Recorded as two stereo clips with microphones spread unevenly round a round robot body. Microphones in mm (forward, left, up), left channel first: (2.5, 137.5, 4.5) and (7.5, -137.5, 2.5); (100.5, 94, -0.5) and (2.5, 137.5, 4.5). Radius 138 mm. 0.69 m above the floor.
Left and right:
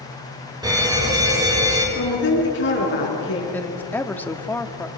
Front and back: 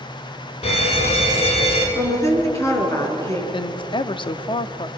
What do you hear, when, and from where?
0.6 s a fire alarm: 15° right, 5.5 m
1.9 s a woman speaking: 40° left, 7.5 m
3.5 s a woman speaking: 10° left, 1.1 m